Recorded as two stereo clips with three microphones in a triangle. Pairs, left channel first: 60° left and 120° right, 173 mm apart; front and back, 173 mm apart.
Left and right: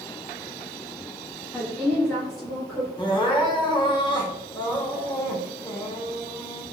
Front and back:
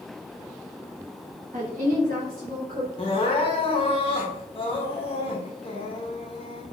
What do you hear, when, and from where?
1.5 s a woman speaking: 155° left, 0.7 m; by 2.9 s 150° left, 1.4 m
3.0 s crying: 20° left, 0.7 m